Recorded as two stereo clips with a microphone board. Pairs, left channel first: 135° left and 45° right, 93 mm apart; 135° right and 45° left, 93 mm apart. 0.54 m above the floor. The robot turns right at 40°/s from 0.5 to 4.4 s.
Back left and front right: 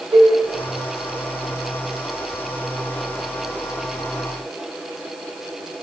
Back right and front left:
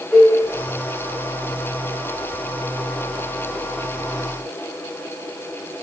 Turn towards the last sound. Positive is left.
turn(degrees=95)